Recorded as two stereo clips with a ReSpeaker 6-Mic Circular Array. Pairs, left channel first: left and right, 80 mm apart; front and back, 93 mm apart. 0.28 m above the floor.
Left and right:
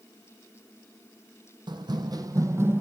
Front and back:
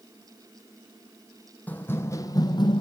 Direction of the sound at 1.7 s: 70° right.